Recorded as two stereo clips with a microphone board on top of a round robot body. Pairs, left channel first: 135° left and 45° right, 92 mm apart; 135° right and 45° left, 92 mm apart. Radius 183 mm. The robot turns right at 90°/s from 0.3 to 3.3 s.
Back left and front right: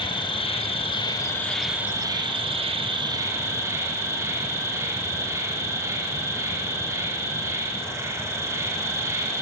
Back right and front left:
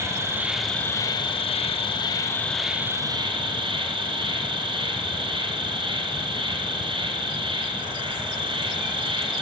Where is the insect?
105° left, 3 m; by 9.4 s 15° left, 3 m.